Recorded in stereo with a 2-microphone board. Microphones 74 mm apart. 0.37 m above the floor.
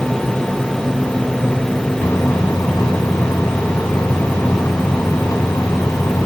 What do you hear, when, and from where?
2.0 s a microwave: 60° left (ahead or behind)